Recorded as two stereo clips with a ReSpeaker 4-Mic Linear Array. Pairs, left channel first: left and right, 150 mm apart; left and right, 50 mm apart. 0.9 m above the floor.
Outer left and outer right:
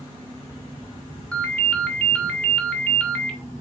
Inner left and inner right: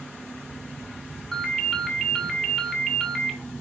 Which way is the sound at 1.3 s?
5° left (ahead or behind).